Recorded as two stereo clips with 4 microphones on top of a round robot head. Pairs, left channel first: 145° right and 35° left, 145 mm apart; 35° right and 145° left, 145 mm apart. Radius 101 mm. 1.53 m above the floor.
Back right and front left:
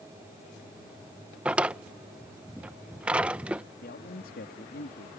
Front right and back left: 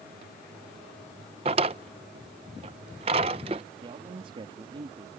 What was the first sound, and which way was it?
A drawer, 115° left.